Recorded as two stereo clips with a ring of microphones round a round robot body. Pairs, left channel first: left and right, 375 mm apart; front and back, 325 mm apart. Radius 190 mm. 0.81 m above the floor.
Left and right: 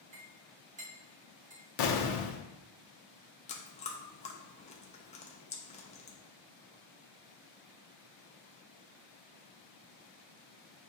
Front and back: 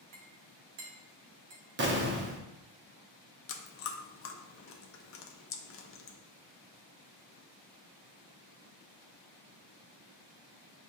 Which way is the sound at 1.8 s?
120° left.